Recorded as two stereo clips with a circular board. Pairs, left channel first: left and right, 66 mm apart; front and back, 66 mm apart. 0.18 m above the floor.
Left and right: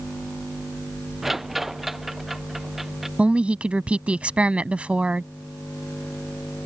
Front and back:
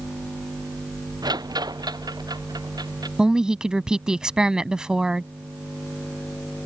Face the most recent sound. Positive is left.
turn(degrees=-125)